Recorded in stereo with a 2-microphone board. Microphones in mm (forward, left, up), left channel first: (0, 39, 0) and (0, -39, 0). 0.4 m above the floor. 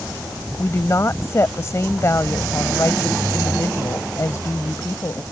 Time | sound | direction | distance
0.6 | a woman speaking | 40° left (ahead or behind) | ?